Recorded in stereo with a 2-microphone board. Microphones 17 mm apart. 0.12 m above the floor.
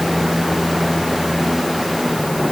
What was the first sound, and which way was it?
Only background noise.